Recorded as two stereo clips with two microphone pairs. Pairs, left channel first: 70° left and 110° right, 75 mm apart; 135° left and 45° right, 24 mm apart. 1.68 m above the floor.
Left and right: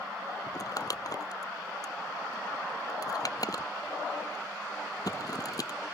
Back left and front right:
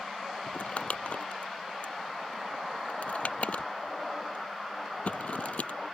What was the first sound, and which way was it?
Crumpling, 110° left.